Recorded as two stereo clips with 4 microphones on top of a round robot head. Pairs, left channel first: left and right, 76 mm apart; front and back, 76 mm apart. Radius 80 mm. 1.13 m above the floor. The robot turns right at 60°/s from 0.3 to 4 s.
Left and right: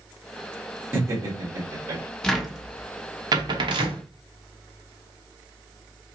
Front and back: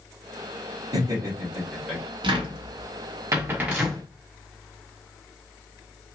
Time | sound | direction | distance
0.9 | laughter | 150° right | 1.7 m
2.2 | a cupboard door | 170° left | 0.9 m